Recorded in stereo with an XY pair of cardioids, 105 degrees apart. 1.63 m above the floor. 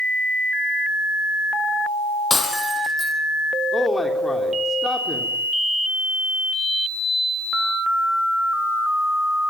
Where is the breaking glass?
20° left, 6 m.